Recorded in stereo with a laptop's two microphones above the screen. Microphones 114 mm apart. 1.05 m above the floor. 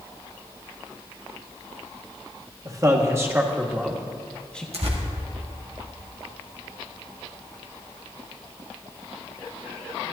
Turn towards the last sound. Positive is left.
turn(degrees=-65)  # may be behind; listen again after turning